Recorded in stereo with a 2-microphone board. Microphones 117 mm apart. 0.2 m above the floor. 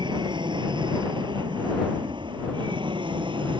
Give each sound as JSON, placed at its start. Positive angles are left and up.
{"t": 0.0, "sound": "an aircraft", "side_deg": -40}